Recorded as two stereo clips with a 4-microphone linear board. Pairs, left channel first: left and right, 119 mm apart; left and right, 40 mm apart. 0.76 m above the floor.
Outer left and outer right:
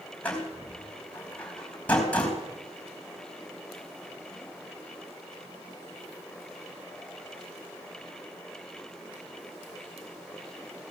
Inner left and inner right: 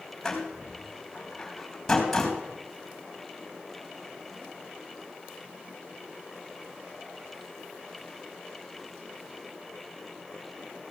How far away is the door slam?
About 3.5 m.